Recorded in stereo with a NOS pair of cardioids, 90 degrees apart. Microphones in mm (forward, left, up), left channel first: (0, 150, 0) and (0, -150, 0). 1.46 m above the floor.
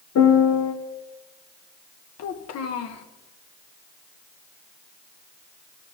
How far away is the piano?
About 1.3 m.